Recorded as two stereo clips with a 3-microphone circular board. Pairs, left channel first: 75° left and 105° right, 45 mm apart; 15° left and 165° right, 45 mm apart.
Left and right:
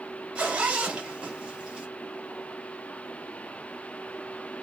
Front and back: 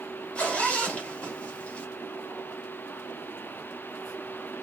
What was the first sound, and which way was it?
A zipper, 40° right.